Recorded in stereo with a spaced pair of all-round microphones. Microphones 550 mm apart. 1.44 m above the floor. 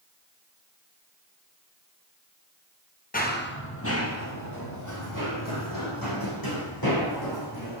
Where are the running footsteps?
15° left (ahead or behind), 2 m; by 7.8 s 40° left (ahead or behind), 5.5 m.